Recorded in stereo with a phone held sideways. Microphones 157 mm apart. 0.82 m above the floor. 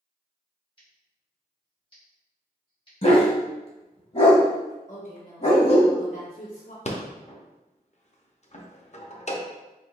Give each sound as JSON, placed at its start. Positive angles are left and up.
{"t": 0.8, "sound": "scissors", "side_deg": 35, "distance_m": 2.0}
{"t": 3.0, "sound": "a dog barking", "side_deg": 45, "distance_m": 1.1}
{"t": 4.9, "sound": "a woman speaking", "side_deg": 50, "distance_m": 1.2}
{"t": 6.8, "sound": "a rattle", "side_deg": 45, "distance_m": 0.6}